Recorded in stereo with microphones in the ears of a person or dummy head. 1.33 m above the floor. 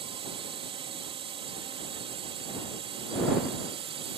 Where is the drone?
25° right (ahead or behind).